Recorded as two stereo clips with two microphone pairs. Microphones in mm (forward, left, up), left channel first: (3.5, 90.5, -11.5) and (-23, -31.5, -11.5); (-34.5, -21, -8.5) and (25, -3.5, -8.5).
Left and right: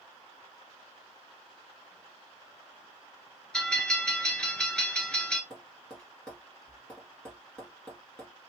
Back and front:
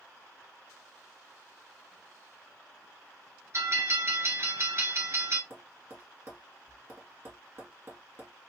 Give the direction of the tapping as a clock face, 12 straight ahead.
12 o'clock.